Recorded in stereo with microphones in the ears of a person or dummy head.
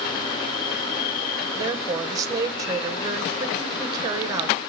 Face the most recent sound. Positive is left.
turn(degrees=-10)  # may be behind; listen again after turning